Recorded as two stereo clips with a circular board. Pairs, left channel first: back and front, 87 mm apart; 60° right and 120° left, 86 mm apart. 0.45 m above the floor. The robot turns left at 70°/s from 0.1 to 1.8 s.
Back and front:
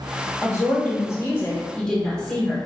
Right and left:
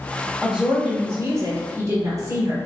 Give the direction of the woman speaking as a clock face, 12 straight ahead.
5 o'clock.